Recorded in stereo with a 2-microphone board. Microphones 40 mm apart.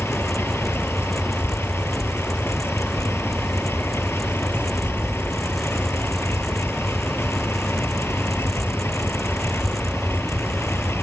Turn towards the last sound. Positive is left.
turn(degrees=90)